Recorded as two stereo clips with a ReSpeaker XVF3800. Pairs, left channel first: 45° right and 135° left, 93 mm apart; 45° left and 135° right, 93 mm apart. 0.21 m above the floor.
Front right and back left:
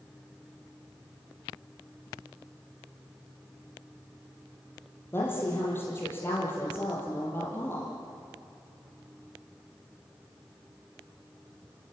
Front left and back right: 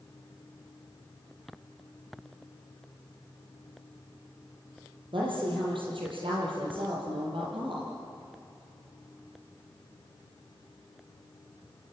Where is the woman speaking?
110° right, 6 m.